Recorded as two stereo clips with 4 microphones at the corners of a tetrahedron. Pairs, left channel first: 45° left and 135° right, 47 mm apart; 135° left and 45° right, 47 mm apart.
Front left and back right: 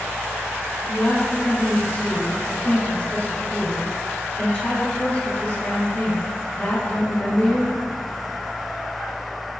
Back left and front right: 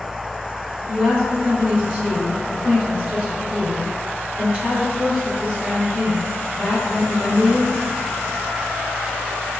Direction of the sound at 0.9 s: 10° left.